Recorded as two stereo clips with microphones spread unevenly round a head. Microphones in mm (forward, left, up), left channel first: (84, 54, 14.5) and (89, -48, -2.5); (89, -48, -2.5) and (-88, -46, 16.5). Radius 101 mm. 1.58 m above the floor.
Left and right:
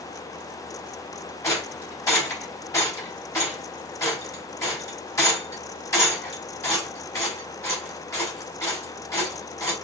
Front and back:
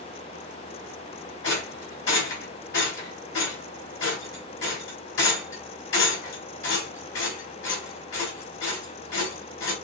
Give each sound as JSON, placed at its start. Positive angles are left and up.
{"t": 1.4, "sound": "a rattle", "azimuth_deg": 30, "distance_m": 4.0}